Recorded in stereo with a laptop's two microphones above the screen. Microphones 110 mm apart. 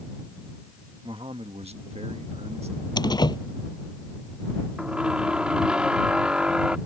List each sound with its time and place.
1.0 s a man speaking: 50° right (ahead or behind); by 2.9 s 65° right (ahead or behind)
3.0 s a door slam: 40° left (ahead or behind)
4.8 s a squeak: 10° right (ahead or behind)